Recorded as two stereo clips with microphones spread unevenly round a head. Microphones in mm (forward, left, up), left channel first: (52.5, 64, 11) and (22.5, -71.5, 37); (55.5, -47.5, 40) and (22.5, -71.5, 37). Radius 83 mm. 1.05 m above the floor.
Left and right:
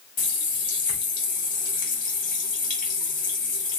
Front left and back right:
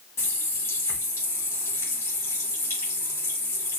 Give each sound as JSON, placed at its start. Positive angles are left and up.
{"t": 0.2, "sound": "a running tap", "azimuth_deg": 50, "distance_m": 2.0}